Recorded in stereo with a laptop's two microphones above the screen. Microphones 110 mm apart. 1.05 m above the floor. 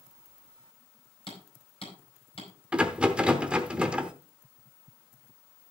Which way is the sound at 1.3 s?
55° left (ahead or behind).